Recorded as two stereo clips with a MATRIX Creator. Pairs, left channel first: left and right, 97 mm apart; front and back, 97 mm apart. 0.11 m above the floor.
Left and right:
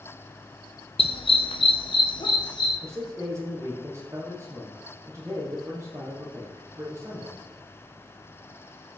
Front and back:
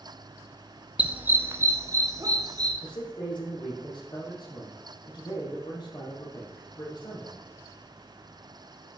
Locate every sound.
1.0 s a dog barking: 105° left, 0.9 m; by 2.7 s 125° left, 1.7 m
2.8 s a man speaking: 30° right, 4 m